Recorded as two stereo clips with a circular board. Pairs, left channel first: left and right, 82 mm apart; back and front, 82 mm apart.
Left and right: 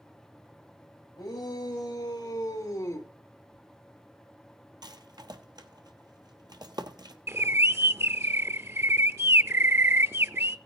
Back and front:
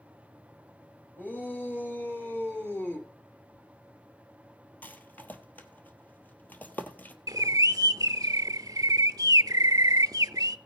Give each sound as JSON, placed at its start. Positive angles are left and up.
{"t": 1.2, "sound": "a shout", "azimuth_deg": 115, "distance_m": 4.5}
{"t": 3.5, "sound": "tearing paper", "azimuth_deg": -150, "distance_m": 8.5}
{"t": 4.8, "sound": "a rattle", "azimuth_deg": -115, "distance_m": 1.0}
{"t": 7.3, "sound": "a bird", "azimuth_deg": -35, "distance_m": 0.5}